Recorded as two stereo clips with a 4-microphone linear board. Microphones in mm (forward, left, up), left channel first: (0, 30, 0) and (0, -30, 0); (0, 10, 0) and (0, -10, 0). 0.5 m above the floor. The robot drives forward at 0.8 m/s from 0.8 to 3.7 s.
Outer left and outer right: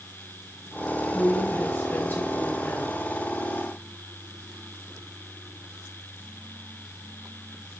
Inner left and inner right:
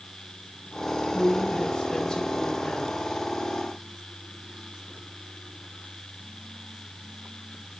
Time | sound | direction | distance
1.1 | a woman speaking | 40° left (ahead or behind) | 4 m